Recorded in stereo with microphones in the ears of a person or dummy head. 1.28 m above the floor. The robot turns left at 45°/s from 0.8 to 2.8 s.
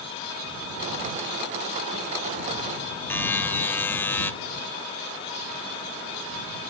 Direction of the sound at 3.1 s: 15° left (ahead or behind).